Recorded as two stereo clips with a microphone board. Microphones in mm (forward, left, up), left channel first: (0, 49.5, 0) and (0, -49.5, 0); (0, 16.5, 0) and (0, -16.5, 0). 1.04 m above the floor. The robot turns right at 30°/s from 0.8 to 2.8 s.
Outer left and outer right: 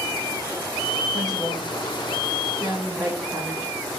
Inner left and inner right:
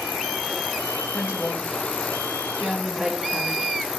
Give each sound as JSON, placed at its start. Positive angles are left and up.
{"t": 1.1, "sound": "a woman speaking", "side_deg": -45, "distance_m": 0.9}